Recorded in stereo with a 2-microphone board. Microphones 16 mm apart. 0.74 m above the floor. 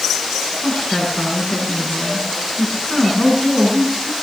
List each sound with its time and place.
0.6 s a woman speaking: 45° left (ahead or behind), 9.5 m